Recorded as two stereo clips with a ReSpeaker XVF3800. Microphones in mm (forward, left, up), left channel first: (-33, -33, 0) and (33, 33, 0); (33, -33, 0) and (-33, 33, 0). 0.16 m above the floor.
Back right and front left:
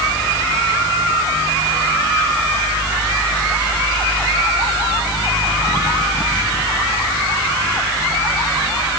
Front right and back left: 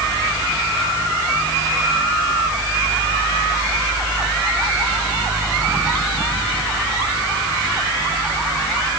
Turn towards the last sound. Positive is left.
No sound to turn to.